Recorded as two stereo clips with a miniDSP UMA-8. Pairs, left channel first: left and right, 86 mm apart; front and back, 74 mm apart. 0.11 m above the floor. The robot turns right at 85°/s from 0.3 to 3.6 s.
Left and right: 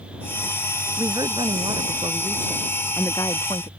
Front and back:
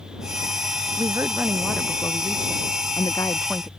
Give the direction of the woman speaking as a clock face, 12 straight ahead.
5 o'clock.